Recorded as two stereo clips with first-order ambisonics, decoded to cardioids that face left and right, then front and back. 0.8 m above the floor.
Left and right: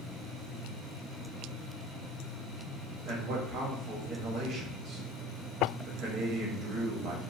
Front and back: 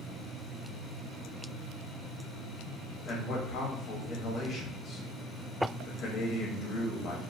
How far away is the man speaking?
About 0.7 m.